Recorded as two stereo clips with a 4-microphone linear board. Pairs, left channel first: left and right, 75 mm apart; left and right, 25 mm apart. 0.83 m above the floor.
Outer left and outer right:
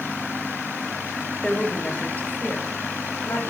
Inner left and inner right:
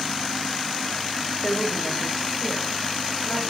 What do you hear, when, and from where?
1.4 s a woman speaking: 10° left (ahead or behind), 4.5 m; by 3.5 s 35° left (ahead or behind), 5.5 m